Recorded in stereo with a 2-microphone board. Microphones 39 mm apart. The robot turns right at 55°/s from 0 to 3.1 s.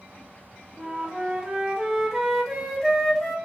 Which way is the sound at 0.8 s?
20° right (ahead or behind).